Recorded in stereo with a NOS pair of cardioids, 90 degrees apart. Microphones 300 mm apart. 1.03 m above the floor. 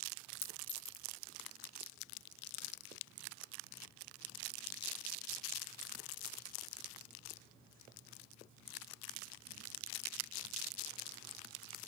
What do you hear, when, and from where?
0.4 s a clink: 45° left, 1.0 m